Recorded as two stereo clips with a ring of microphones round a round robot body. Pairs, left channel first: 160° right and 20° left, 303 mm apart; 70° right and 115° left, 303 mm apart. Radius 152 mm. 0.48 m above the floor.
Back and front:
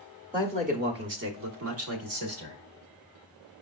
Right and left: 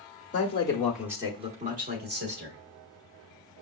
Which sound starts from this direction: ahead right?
A man speaking, at 0.3 s.